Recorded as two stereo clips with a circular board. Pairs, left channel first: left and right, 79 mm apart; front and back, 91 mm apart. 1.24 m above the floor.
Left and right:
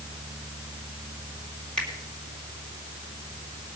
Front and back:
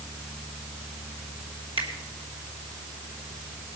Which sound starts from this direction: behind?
A finger snap, at 1.8 s.